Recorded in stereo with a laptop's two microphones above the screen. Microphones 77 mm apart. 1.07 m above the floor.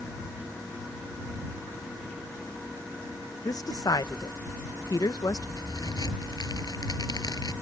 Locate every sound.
3.5 s a woman speaking: 55° left (ahead or behind)
5.6 s a crack: 60° left (ahead or behind)